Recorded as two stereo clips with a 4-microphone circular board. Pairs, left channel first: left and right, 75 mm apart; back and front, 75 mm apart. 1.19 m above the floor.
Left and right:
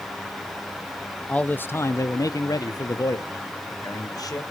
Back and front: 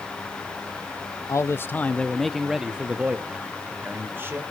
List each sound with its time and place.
1.3 s a man speaking: 160° left, 0.6 m; by 4.4 s 60° left, 1.6 m